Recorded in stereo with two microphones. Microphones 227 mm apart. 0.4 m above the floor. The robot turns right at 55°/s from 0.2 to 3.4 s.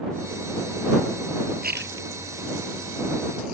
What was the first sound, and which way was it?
A splash, 40° right (ahead or behind).